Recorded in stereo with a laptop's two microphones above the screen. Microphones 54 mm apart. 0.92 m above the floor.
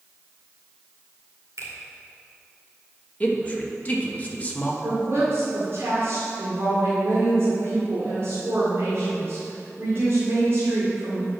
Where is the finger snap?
85° right, 2 m.